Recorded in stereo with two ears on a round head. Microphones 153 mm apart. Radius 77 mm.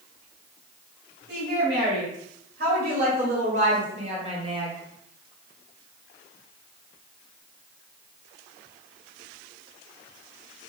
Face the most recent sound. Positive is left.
turn(degrees=-25)  # may be behind; listen again after turning